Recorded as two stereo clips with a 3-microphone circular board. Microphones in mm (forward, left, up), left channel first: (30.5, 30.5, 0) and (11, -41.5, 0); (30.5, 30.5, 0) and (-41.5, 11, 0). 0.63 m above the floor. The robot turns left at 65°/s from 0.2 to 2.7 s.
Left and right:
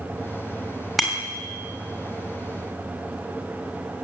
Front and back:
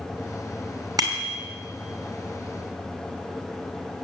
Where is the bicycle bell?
165° left, 2.5 m; by 1.4 s 140° left, 2.5 m.